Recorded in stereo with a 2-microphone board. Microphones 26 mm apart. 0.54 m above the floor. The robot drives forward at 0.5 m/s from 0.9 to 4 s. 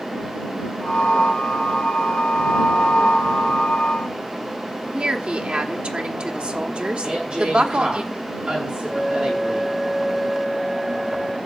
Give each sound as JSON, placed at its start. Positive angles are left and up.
{"t": 4.9, "sound": "a woman speaking", "side_deg": -50, "distance_m": 1.3}
{"t": 7.0, "sound": "a woman speaking", "side_deg": -40, "distance_m": 6.5}
{"t": 8.9, "sound": "a flute", "side_deg": -5, "distance_m": 0.6}